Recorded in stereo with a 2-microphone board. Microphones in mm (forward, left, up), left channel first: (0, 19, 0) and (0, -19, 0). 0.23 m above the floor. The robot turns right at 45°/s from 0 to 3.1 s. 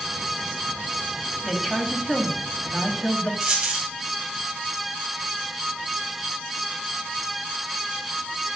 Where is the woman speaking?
Centre (ahead or behind), 1.0 m; by 3.3 s 25° left (ahead or behind), 1.0 m.